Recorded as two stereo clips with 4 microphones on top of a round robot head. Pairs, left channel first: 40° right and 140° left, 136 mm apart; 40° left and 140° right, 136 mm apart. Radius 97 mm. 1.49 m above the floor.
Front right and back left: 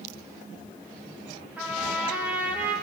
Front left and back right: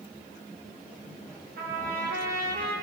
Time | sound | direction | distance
1.6 | a trumpet | 140° right | 2.5 m